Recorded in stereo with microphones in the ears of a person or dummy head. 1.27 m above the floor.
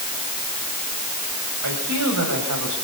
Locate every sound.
1.6 s a man speaking: 85° right, 8.5 m; by 2.8 s 80° right, 8.5 m